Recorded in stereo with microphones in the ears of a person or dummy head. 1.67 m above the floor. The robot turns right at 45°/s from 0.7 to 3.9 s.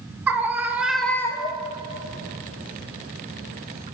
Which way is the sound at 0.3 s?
10° right.